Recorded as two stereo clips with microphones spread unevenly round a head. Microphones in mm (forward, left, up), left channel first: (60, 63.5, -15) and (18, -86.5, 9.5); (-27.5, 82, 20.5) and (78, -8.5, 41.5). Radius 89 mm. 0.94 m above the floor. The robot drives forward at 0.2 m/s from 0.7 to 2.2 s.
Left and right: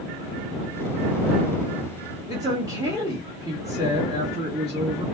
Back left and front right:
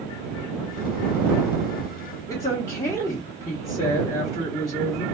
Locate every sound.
2.3 s a woman speaking: straight behind, 1.1 m